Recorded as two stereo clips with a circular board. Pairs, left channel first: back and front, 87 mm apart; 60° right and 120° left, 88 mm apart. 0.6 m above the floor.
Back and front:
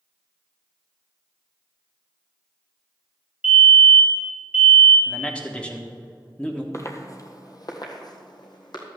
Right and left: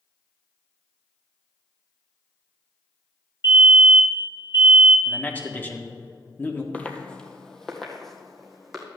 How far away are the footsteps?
About 1.1 m.